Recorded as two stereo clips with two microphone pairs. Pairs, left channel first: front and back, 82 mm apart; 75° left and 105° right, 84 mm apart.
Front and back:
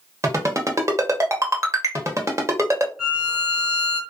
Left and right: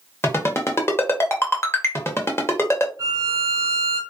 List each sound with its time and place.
0.2 s a ringtone: 130° left, 0.8 m
3.0 s a violin: 105° right, 1.3 m